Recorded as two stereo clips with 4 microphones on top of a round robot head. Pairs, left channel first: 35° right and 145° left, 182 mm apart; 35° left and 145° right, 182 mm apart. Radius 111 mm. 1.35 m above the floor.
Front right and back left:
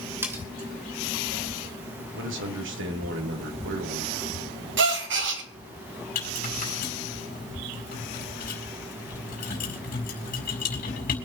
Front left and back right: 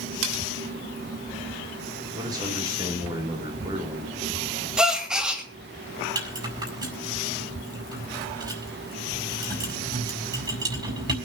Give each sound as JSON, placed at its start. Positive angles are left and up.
{"t": 0.2, "sound": "cutlery clinking", "azimuth_deg": -135, "distance_m": 3.0}
{"t": 2.1, "sound": "a man speaking", "azimuth_deg": 145, "distance_m": 3.0}
{"t": 4.8, "sound": "a gasp", "azimuth_deg": 125, "distance_m": 2.5}
{"t": 6.2, "sound": "a rattle", "azimuth_deg": -80, "distance_m": 5.0}